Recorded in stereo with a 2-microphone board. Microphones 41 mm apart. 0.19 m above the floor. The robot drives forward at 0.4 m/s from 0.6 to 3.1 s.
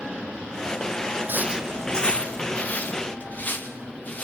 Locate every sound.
1.3 s footsteps: 55° right (ahead or behind), 0.5 m; by 4.2 s 40° left (ahead or behind), 4 m